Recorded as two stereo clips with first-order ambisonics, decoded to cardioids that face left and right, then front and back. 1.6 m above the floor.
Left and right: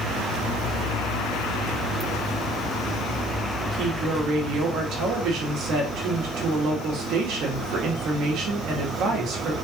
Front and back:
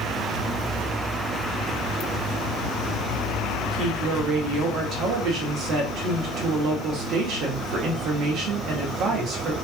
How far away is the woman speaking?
About 1.3 m.